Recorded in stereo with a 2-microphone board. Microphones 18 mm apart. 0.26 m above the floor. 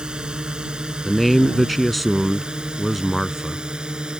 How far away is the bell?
I don't hear a bell.